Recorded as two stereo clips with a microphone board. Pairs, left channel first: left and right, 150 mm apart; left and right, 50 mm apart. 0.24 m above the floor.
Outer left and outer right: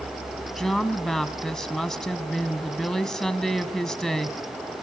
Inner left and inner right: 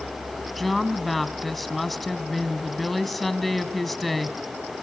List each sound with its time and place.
0.6 s a woman speaking: 5° left (ahead or behind), 1.5 m